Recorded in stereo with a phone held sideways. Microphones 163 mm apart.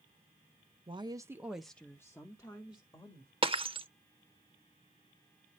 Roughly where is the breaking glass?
Right.